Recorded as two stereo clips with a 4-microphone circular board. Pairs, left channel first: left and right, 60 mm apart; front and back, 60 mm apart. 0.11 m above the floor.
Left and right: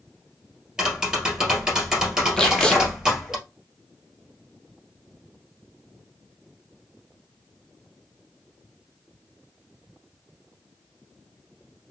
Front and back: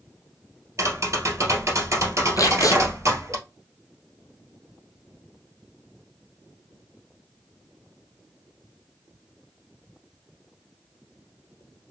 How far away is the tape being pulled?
About 0.8 m.